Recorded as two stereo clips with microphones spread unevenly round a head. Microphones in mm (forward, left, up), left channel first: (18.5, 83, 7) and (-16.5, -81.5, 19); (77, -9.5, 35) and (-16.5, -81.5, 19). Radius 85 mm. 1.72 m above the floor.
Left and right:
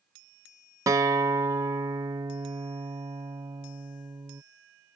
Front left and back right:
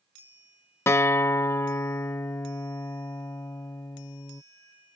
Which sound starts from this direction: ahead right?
A guitar, at 0.9 s.